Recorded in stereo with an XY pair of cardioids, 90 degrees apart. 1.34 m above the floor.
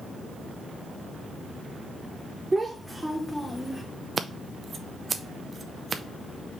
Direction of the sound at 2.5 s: 20° right.